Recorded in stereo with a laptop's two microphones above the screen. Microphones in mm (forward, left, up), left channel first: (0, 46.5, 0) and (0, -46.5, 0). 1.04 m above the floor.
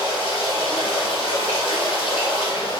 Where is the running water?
80° left, 1.6 m.